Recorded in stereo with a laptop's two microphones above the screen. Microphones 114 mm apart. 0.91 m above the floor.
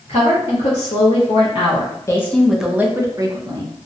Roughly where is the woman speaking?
Left.